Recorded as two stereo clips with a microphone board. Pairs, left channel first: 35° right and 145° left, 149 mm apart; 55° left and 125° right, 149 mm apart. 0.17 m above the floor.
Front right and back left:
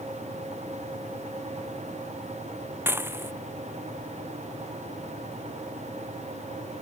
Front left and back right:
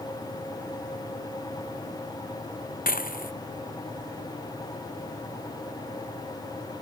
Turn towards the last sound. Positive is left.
turn(degrees=70)